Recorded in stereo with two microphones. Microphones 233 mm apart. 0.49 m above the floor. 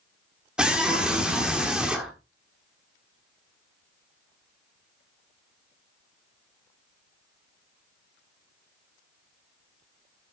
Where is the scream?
5° right (ahead or behind), 1.4 m.